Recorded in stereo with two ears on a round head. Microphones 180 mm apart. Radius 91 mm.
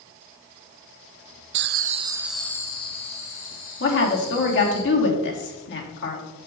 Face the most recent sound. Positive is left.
turn(degrees=60)  # may be behind; listen again after turning